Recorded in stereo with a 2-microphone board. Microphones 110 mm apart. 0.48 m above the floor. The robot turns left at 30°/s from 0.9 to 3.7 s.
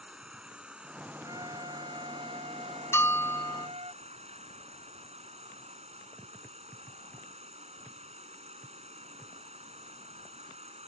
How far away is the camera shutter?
I don't hear a camera shutter.